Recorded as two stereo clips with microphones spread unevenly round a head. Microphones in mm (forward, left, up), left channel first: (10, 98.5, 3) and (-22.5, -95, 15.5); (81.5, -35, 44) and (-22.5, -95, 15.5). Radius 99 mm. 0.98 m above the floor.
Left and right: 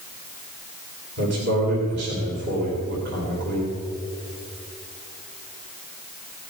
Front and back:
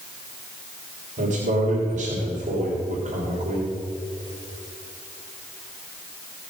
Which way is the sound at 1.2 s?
135° right.